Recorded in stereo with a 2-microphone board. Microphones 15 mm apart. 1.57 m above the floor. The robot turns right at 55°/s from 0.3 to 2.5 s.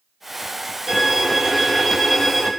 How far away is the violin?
About 1.3 m.